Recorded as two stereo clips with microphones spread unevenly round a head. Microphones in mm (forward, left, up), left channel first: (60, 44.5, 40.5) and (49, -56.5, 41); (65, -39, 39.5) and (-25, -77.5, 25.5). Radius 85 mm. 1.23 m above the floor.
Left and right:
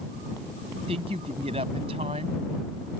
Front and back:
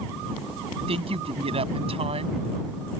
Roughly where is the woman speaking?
Behind right.